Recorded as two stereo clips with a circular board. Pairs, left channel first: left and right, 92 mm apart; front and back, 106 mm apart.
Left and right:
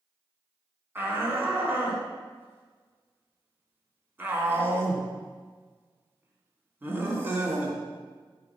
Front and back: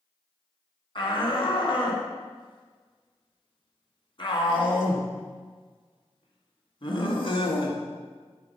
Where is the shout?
25° right, 3 m.